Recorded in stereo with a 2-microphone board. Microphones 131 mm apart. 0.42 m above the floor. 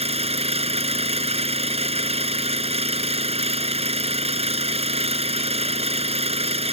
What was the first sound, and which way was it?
An engine running, 55° right (ahead or behind).